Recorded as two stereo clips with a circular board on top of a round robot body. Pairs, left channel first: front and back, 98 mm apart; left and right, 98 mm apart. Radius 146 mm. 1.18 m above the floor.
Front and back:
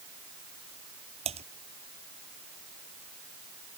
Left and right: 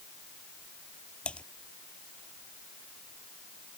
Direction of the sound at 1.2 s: 170° left.